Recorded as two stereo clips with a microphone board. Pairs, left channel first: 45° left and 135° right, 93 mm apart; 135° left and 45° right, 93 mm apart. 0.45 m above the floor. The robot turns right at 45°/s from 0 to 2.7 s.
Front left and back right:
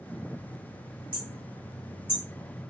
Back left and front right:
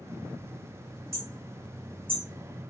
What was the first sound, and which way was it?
Hammering, 105° right.